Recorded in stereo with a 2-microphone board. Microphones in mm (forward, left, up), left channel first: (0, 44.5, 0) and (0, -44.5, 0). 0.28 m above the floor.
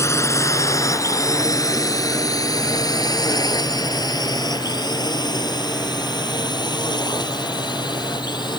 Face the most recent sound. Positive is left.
turn(degrees=55)  # may be behind; listen again after turning